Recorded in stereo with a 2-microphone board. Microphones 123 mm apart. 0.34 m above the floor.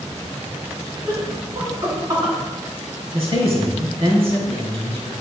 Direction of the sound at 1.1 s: 30° right (ahead or behind).